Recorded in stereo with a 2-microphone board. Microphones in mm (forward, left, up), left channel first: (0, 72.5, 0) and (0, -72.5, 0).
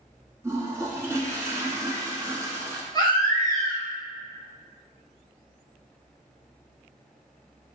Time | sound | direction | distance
0.4 | a toilet flushing | 20° right (ahead or behind) | 1.0 m
2.9 | a baby crying | 30° left (ahead or behind) | 1.5 m